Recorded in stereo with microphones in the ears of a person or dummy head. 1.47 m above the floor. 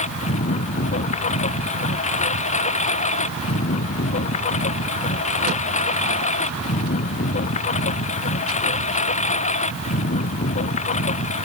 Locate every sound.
0.0 s a lawn mower: 40° left (ahead or behind)